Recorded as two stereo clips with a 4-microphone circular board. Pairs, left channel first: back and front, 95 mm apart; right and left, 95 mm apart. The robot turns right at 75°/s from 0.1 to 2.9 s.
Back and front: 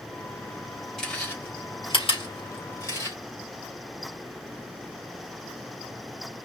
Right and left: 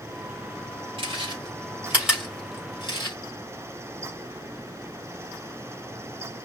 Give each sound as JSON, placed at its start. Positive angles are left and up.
{"t": 1.0, "sound": "chewing", "azimuth_deg": 90, "distance_m": 4.0}